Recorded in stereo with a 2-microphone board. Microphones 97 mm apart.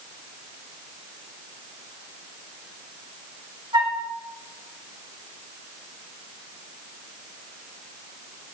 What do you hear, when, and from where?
3.7 s a flute: 50° right (ahead or behind), 1.5 m